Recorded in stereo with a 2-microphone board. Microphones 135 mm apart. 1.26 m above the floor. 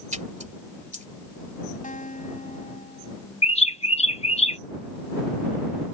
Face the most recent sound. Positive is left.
turn(degrees=50)  # may be behind; listen again after turning